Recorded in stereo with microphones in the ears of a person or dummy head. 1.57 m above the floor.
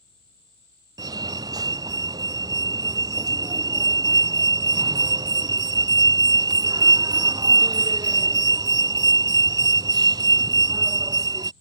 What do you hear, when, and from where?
1.0 s a fire alarm: 20° right (ahead or behind)